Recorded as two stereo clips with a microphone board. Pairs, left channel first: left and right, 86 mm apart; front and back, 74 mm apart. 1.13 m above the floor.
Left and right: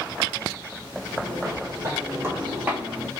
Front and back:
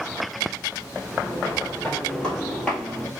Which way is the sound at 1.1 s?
70° right.